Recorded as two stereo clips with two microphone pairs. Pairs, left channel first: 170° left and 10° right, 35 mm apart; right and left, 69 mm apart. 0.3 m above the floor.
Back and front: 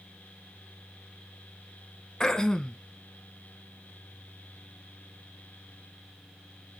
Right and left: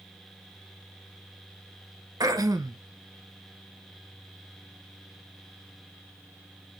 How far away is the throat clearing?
About 0.6 m.